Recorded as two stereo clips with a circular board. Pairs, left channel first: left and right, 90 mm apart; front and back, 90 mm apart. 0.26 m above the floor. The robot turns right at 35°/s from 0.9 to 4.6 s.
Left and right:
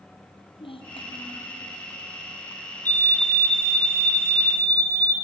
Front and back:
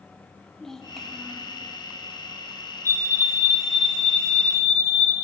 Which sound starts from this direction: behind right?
A fire alarm, at 2.9 s.